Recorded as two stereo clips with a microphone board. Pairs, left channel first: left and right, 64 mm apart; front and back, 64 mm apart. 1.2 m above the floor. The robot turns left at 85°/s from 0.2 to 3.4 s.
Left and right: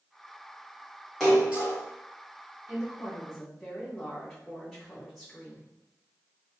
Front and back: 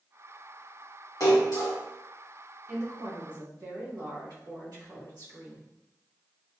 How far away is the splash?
About 1.6 m.